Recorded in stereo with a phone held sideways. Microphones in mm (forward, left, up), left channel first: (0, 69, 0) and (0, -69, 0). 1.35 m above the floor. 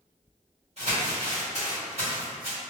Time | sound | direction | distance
0.8 | crumpling | 50° right (ahead or behind) | 1.8 m